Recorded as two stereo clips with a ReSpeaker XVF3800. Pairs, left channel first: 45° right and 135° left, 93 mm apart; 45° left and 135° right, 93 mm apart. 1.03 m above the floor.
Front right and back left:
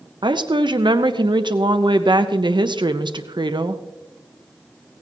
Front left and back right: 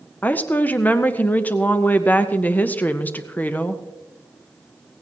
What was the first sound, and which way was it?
A woman speaking, 115° left.